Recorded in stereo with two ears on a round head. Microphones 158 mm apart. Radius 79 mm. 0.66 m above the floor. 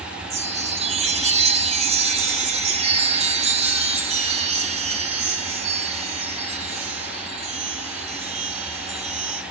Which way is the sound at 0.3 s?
35° right (ahead or behind).